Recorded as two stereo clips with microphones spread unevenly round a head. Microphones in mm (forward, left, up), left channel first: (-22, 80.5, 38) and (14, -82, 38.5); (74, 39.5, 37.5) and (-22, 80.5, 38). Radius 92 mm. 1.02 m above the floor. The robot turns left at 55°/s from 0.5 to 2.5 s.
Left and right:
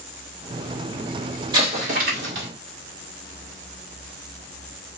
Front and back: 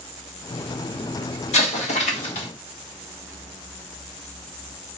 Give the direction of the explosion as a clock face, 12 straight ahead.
12 o'clock.